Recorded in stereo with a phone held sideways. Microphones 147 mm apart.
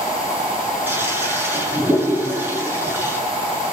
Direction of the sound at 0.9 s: 15° right (ahead or behind).